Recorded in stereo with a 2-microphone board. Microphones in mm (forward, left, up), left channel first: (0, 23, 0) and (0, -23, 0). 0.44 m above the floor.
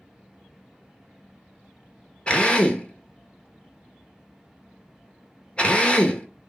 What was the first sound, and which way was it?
A drill, 25° left (ahead or behind).